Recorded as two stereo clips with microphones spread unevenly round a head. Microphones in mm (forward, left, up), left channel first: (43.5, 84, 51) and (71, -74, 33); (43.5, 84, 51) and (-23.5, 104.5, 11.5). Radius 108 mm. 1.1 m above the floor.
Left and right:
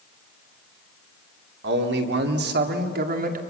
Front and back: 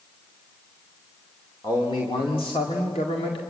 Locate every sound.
1.6 s a man speaking: 85° right, 2.5 m; by 3.4 s 45° right, 2 m